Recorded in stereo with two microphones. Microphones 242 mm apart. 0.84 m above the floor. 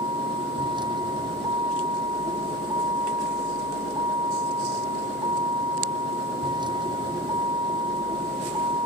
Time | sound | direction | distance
0.0 | a vehicle | 20° right (ahead or behind) | ?